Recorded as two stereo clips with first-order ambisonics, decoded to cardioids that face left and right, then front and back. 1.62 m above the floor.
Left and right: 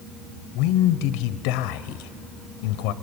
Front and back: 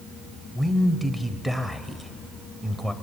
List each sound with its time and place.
0.6 s a man speaking: 95° left, 0.8 m